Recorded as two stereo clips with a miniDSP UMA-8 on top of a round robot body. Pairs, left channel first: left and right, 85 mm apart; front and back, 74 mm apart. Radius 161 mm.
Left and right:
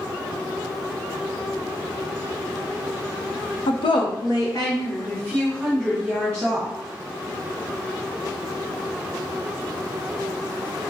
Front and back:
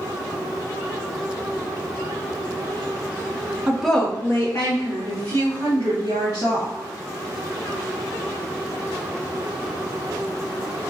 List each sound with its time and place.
3.7 s a woman speaking: 105° left, 0.7 m; by 6.7 s 10° left, 3 m